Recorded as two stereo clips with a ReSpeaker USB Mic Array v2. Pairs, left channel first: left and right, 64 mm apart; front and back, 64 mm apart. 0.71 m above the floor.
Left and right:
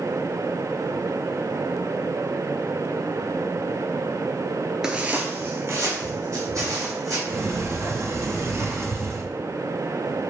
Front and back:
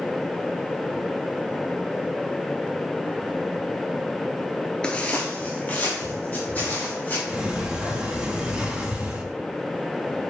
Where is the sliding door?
110° right, 0.6 m.